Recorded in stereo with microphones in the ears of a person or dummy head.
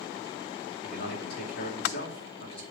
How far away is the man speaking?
About 2.5 m.